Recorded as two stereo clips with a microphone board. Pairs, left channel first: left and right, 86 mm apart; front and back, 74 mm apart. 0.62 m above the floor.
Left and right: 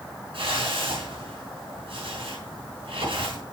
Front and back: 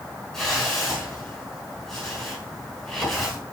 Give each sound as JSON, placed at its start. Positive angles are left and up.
{"t": 0.3, "sound": "a whoosh", "azimuth_deg": -85, "distance_m": 5.5}